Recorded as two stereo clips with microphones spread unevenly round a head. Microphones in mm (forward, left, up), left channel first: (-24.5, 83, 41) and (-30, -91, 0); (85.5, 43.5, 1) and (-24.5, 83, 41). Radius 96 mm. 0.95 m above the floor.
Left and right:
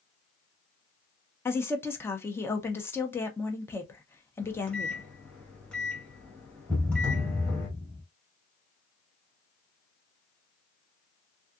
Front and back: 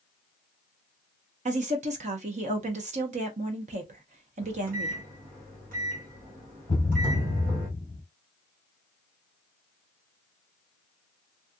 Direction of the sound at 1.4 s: 175° left.